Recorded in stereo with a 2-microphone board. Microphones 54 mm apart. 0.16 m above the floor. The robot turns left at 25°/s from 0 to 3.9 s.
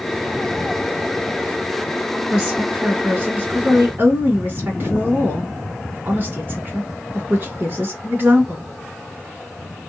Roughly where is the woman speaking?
Ahead right.